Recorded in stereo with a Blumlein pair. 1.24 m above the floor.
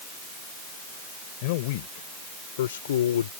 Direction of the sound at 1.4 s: 50° left.